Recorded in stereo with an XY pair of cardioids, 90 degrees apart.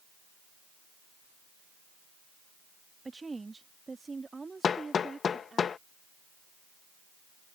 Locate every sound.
3.0 s a woman speaking: 25° right; by 5.6 s 30° right
4.6 s hammering: 55° left